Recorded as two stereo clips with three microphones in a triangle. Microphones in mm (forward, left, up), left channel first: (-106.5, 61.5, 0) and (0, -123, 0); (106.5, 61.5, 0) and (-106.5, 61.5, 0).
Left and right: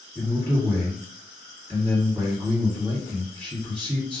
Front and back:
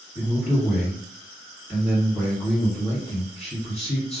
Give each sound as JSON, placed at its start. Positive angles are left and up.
{"t": 0.1, "sound": "a man speaking", "azimuth_deg": -20, "distance_m": 1.5}